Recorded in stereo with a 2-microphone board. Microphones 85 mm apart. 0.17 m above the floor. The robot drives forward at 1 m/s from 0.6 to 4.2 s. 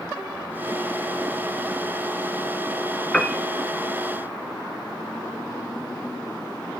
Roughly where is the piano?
Centre.